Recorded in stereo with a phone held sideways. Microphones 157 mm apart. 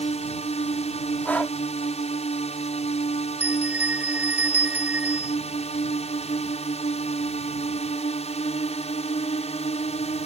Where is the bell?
10° right (ahead or behind).